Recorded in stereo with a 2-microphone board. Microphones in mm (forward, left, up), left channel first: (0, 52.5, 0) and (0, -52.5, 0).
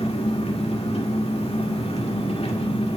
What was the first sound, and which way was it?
An engine running, 75° left (ahead or behind).